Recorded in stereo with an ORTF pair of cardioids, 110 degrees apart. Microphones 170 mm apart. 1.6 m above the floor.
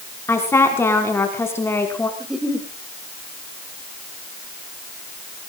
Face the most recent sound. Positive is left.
turn(degrees=-5)